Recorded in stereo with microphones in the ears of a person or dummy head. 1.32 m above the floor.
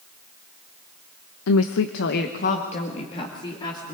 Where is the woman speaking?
75° left (ahead or behind), 0.9 m; by 3.9 s 20° left (ahead or behind), 3 m.